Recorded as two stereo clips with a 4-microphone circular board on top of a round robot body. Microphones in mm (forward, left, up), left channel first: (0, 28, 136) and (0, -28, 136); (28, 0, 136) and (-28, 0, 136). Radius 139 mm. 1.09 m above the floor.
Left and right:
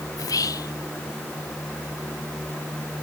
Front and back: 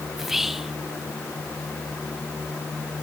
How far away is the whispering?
About 0.5 m.